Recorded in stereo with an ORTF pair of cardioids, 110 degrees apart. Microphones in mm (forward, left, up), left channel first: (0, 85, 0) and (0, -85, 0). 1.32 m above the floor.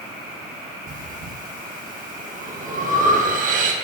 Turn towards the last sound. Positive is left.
turn(degrees=-50)